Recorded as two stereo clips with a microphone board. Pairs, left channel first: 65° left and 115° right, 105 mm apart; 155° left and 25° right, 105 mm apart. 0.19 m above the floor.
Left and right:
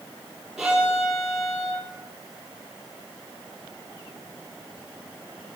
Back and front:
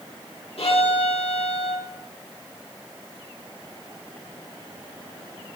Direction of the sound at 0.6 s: 160° left.